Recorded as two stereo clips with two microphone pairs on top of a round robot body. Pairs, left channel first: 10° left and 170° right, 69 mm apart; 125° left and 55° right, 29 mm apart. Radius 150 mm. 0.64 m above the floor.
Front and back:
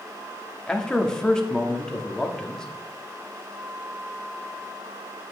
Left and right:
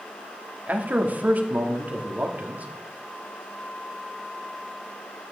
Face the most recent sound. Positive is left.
turn(degrees=-70)